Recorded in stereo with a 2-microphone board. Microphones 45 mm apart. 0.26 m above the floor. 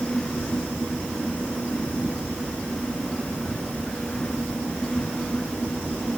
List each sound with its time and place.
Only background noise.